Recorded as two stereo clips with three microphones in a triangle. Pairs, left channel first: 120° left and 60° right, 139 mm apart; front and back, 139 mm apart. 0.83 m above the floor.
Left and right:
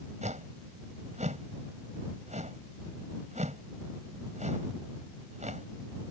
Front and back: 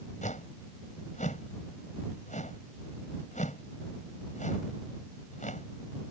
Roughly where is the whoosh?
Ahead right.